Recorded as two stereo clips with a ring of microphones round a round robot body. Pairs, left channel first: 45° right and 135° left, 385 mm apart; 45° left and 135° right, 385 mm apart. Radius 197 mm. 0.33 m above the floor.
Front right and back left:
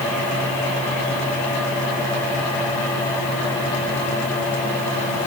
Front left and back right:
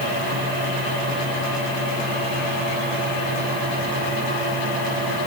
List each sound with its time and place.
Only background noise.